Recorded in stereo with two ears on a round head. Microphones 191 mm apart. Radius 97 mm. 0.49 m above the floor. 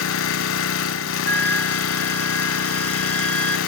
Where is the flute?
10° left (ahead or behind), 0.6 m.